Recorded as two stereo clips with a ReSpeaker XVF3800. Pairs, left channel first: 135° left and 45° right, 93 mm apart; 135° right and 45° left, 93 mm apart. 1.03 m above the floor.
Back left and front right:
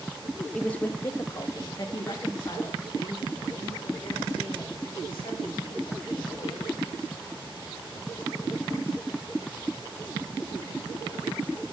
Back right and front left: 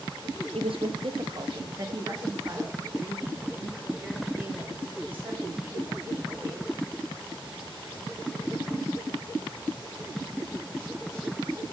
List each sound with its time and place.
0.5 s a woman speaking: 55° left, 0.7 m; by 6.8 s 115° left, 3.5 m